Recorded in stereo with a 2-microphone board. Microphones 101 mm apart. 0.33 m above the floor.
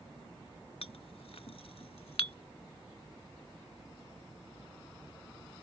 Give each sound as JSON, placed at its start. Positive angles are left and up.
{"t": 0.8, "sound": "a clink", "side_deg": 70}